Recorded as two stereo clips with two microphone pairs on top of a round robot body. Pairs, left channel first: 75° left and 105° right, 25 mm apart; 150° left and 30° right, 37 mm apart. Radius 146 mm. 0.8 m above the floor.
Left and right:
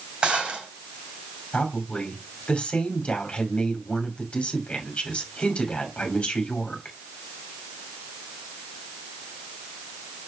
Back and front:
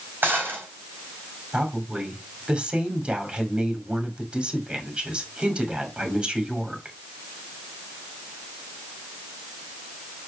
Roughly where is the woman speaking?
Ahead left.